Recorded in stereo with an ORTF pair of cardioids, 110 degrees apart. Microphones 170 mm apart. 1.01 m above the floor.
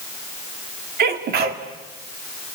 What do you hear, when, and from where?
1.0 s a sneeze: 60° right, 2.5 m